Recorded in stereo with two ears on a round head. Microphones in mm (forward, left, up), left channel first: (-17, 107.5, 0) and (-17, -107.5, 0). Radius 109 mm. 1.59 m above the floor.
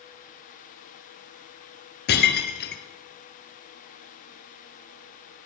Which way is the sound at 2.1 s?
45° left (ahead or behind).